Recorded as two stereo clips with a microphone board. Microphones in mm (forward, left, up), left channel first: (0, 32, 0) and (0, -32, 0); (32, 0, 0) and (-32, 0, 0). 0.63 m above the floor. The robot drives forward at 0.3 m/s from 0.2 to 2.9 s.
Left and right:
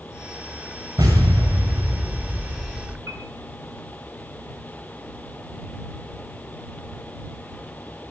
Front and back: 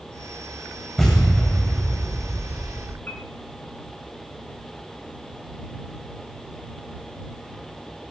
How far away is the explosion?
About 8.5 m.